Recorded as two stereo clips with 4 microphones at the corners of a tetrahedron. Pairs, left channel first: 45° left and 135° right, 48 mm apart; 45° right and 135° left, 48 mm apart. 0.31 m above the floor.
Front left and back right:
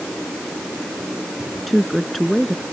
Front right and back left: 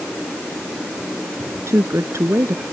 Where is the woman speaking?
130° left.